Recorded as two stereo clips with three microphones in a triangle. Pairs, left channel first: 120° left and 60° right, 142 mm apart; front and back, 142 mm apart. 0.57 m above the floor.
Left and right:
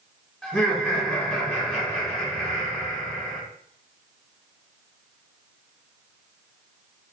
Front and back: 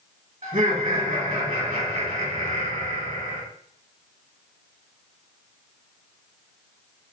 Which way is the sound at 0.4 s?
155° right.